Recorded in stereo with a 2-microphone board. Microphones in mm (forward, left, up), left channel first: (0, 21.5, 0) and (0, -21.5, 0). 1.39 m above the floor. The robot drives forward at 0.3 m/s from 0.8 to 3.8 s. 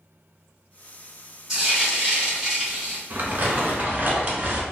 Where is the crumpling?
45° right (ahead or behind), 0.8 m; by 4.6 s 40° right (ahead or behind), 0.9 m.